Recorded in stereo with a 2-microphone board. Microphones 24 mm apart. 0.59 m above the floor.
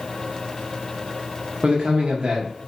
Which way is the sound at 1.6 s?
40° right (ahead or behind).